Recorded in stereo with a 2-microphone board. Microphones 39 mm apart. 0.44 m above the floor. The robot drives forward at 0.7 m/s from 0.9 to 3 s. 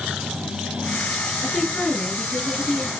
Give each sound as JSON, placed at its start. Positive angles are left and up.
{"t": 1.4, "sound": "a woman speaking", "side_deg": 15, "distance_m": 7.5}